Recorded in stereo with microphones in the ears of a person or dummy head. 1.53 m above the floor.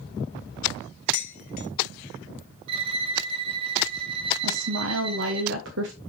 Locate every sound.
1.1 s dishes clattering: 55° left (ahead or behind), 1.3 m
2.7 s a violin: 35° right (ahead or behind), 0.9 m
4.4 s a woman speaking: 80° right, 1.1 m